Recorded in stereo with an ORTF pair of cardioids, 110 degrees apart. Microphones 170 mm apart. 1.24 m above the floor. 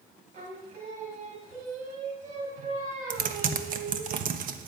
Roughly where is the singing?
Ahead right.